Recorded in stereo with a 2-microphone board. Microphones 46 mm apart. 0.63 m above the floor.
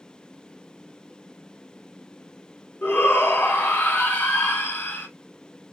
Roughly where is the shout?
Left.